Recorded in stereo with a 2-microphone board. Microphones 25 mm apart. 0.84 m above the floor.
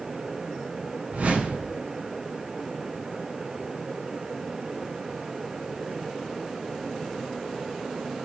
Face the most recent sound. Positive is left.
turn(degrees=-65)  # may be behind; listen again after turning